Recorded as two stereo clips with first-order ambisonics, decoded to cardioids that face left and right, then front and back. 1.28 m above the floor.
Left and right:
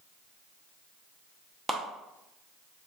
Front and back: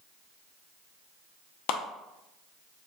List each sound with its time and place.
1.7 s a clap: 15° right, 0.8 m